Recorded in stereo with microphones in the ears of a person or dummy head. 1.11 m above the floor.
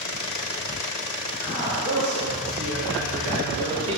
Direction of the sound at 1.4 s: 80° right.